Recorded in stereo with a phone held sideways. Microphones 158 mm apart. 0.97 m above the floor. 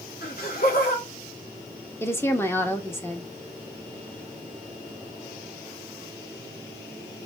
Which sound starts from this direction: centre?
A woman speaking, at 2.0 s.